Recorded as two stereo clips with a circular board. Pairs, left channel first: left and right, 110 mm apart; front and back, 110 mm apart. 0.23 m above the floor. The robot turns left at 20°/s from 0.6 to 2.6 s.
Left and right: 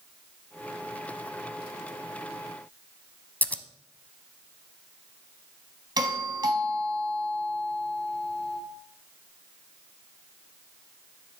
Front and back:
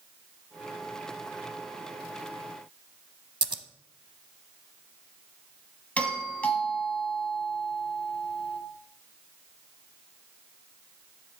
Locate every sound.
3.4 s scissors: 160° left, 0.6 m
6.0 s a doorbell: 70° right, 1.9 m